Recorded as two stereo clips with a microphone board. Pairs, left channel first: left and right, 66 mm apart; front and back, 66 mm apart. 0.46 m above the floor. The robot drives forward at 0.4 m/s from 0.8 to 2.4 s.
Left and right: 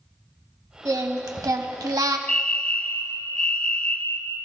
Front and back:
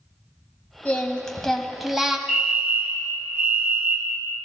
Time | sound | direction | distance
0.8 | singing | 65° right | 1.1 m
2.3 | a fire alarm | 135° left | 2.0 m